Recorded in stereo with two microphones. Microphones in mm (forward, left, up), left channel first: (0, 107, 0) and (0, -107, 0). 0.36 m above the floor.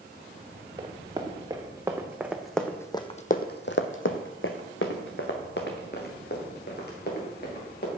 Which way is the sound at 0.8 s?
25° right (ahead or behind).